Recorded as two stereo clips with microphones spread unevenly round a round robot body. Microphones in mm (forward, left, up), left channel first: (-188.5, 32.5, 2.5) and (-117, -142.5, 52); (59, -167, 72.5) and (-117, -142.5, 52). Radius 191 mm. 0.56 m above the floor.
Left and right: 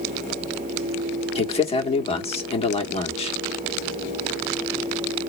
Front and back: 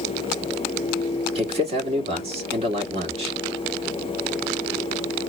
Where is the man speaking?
140° left, 1.5 m.